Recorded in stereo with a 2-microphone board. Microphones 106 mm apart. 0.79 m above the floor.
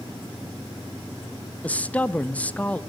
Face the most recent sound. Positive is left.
turn(degrees=15)  # may be behind; listen again after turning